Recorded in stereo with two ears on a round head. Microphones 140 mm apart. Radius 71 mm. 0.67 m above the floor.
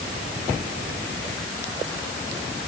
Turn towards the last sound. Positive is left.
No sound to turn to.